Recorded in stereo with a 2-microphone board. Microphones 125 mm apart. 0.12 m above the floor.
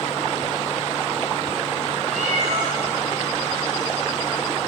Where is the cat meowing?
70° right (ahead or behind), 6 m.